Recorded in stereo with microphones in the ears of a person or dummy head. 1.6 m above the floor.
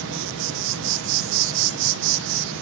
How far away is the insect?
About 1.0 m.